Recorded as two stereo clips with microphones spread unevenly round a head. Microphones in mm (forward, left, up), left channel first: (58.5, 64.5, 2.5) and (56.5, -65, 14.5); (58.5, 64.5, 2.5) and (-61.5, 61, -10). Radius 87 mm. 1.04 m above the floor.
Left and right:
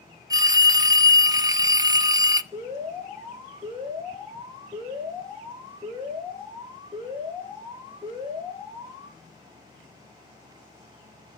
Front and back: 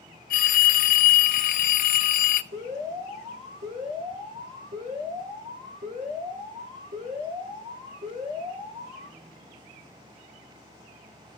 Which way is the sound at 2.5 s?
170° right.